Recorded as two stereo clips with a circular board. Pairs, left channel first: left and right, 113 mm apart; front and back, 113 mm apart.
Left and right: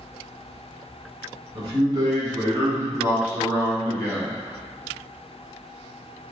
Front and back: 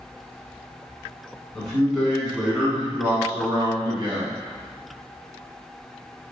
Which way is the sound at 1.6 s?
85° right.